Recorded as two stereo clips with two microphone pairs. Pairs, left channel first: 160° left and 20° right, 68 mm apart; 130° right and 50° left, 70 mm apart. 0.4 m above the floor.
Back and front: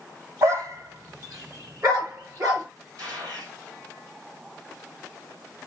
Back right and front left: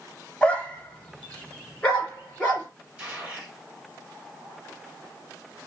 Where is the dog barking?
55° right, 0.9 m.